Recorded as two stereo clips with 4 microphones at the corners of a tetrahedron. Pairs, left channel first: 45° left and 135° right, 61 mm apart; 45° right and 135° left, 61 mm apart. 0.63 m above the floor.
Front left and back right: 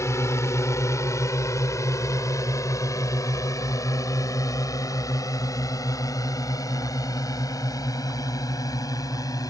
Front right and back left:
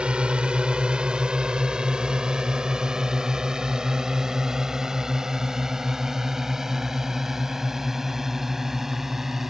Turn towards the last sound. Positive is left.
turn(degrees=50)